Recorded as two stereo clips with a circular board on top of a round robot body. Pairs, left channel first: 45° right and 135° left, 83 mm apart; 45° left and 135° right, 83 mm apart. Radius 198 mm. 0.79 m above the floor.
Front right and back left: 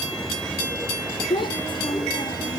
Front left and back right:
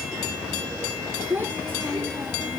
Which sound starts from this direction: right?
A child speaking, at 1.3 s.